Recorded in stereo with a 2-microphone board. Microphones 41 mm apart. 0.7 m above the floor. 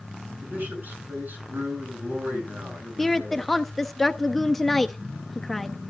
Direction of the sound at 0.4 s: 45° right (ahead or behind).